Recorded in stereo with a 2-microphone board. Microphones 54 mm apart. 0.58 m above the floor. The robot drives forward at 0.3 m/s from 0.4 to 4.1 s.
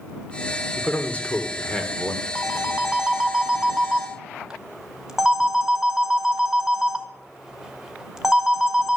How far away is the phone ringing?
About 1.0 m.